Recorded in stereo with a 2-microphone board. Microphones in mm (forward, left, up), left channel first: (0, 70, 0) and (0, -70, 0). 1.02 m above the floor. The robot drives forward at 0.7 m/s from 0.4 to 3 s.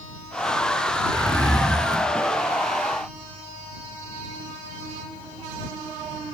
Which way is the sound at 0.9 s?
30° right (ahead or behind).